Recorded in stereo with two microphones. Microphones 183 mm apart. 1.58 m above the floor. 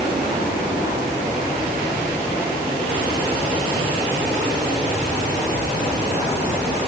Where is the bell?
No bell in this recording.